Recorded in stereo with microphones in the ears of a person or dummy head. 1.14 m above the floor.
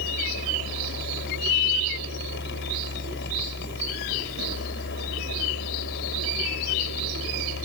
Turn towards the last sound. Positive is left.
turn(degrees=60)  # may be behind; listen again after turning